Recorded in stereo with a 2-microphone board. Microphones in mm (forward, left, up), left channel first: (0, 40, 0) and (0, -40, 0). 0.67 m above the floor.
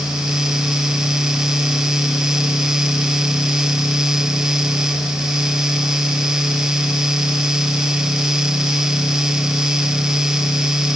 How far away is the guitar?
No guitar in this recording.